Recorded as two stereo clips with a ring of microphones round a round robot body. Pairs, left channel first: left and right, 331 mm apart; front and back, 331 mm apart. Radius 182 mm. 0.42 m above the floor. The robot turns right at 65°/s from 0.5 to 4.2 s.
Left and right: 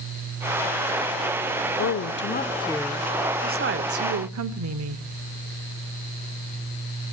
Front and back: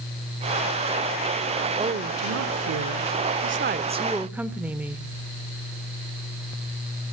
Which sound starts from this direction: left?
A woman speaking, at 1.8 s.